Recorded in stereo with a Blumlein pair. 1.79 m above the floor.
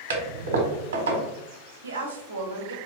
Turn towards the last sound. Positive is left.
turn(degrees=-70)